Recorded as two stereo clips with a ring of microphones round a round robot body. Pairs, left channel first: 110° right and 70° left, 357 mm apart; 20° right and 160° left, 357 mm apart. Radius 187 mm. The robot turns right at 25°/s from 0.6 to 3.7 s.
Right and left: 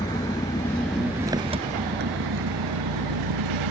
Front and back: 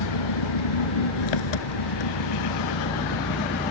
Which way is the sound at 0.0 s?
30° right.